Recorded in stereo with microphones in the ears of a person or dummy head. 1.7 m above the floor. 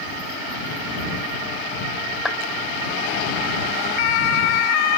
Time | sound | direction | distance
2.2 | a clap | 5° right (ahead or behind) | ?